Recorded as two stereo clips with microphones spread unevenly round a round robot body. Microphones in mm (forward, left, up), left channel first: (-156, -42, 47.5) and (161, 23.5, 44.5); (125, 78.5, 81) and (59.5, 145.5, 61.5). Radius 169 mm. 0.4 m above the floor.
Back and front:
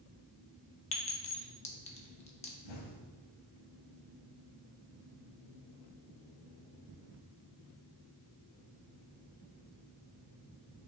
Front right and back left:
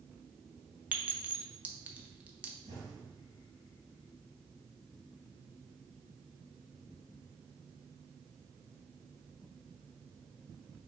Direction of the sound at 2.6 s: 170° right.